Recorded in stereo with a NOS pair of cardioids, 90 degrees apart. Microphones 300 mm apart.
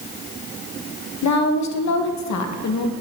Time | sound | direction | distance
1.2 | a woman speaking | 65° left | 1.3 m